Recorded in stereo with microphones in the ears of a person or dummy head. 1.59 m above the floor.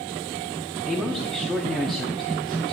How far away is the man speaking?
About 0.6 m.